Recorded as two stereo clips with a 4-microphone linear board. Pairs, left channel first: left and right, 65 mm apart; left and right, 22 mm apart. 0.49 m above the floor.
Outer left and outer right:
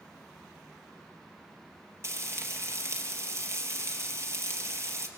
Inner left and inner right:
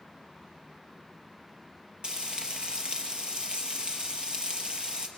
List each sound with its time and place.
2.0 s frying: 45° right (ahead or behind), 3.5 m